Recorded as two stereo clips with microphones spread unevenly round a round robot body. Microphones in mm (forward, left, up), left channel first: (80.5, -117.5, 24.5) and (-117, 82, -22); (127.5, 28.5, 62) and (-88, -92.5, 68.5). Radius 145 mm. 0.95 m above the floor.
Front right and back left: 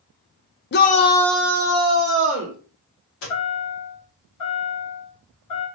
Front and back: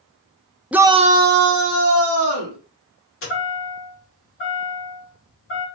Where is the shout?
65° right, 0.5 m; by 2.6 s 170° right, 1.1 m.